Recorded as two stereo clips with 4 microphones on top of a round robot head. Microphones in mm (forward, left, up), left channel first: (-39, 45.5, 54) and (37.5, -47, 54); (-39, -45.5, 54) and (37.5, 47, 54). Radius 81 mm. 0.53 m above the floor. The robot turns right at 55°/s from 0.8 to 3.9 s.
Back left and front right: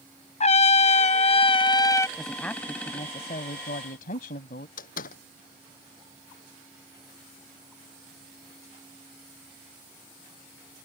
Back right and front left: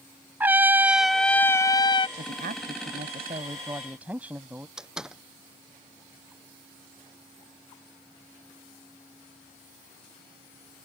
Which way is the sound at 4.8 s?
135° left.